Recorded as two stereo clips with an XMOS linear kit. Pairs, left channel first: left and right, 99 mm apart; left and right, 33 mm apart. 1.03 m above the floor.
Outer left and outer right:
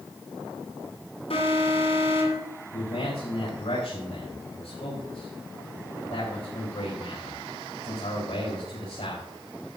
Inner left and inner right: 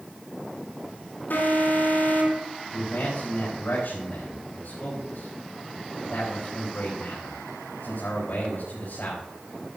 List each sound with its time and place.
1.3 s an alarm: 75° left (ahead or behind), 8.5 m
2.7 s a man speaking: 80° left, 5 m